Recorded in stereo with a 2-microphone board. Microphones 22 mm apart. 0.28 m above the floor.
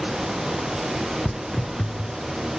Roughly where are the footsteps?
Left.